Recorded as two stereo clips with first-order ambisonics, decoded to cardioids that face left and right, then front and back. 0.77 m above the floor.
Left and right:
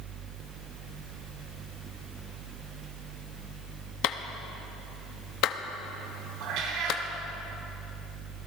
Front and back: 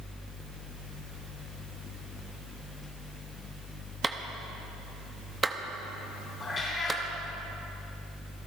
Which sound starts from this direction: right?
A cat meowing, at 6.4 s.